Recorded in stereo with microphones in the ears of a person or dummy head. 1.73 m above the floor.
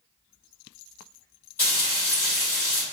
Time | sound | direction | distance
1.6 | frying | 15° left (ahead or behind) | 1.2 m